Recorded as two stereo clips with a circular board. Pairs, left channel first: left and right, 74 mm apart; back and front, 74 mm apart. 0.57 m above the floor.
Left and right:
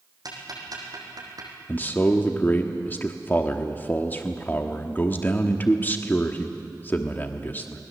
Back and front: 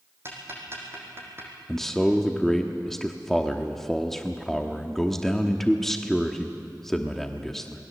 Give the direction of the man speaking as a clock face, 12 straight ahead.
9 o'clock.